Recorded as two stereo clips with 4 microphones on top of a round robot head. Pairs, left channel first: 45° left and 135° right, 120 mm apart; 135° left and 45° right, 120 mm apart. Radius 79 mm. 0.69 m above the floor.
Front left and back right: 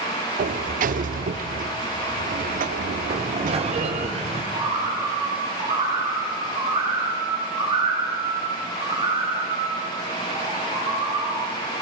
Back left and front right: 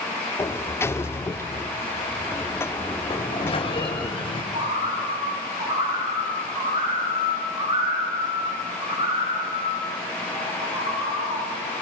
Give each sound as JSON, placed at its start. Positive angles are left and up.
{"t": 0.4, "sound": "a sliding door", "azimuth_deg": -155, "distance_m": 0.9}
{"t": 3.1, "sound": "a sliding door", "azimuth_deg": -175, "distance_m": 3.0}
{"t": 4.5, "sound": "a bird", "azimuth_deg": -90, "distance_m": 9.5}